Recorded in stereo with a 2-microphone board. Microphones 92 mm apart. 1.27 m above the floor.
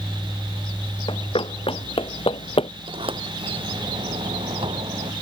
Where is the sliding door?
80° right.